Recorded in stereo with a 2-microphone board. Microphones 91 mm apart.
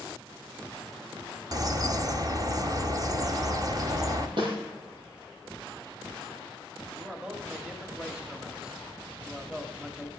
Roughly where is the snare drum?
Right.